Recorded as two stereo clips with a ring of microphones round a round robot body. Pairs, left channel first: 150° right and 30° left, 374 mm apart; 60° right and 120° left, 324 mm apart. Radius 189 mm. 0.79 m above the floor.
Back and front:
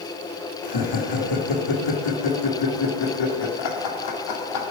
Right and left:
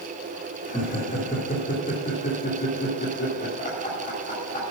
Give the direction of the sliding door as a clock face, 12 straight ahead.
I don't hear a sliding door.